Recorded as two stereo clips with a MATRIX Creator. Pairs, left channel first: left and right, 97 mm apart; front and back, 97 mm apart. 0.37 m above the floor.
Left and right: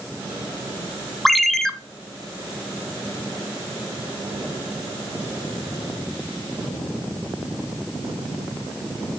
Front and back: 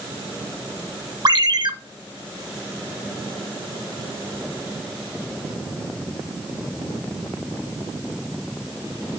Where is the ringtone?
Straight behind, 0.7 m.